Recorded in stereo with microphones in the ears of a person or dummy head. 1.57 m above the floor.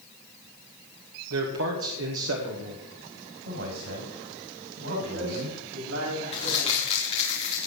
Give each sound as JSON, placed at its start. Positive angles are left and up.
{"t": 1.3, "sound": "a man speaking", "side_deg": -85, "distance_m": 2.0}
{"t": 3.5, "sound": "a man speaking", "side_deg": -80, "distance_m": 7.5}
{"t": 4.9, "sound": "a man speaking", "side_deg": -70, "distance_m": 8.0}
{"t": 6.3, "sound": "crumpling", "side_deg": 30, "distance_m": 3.5}